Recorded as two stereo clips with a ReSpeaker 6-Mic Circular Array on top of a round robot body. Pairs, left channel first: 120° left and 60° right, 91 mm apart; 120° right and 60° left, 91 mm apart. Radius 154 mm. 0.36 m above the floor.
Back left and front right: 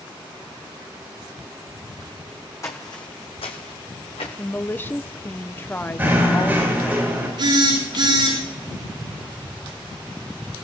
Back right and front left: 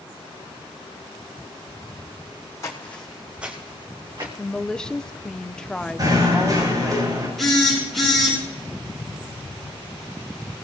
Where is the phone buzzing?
35° right, 8.5 m.